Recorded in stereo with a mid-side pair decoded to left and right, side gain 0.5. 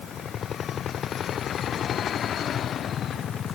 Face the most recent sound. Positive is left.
No sound to turn to.